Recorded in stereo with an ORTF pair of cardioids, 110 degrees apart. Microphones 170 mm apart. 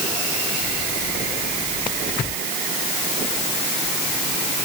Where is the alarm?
I don't hear an alarm.